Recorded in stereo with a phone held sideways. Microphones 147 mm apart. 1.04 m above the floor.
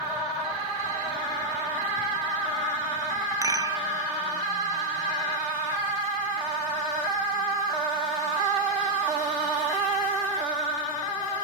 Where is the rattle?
25° right (ahead or behind), 0.6 m.